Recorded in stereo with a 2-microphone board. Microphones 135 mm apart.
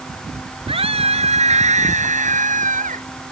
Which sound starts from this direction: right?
A scream, at 0.7 s.